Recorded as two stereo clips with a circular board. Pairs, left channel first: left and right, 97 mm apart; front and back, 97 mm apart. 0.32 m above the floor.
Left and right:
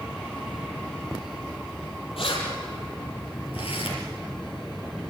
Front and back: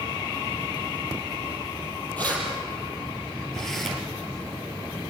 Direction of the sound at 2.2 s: 75° left.